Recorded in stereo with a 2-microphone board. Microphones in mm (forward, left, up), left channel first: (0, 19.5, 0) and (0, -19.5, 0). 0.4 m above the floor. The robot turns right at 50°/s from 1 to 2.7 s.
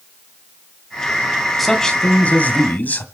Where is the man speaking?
5° left, 2.5 m; by 3.0 s 60° left, 2.5 m.